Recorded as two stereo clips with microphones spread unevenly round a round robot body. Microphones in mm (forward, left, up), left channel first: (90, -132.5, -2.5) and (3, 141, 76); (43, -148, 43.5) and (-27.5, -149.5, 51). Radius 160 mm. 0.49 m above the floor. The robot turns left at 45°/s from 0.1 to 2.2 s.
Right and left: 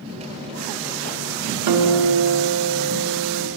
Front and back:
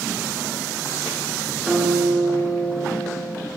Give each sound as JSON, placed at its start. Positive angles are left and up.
{"t": 1.7, "sound": "a guitar", "azimuth_deg": 100, "distance_m": 1.2}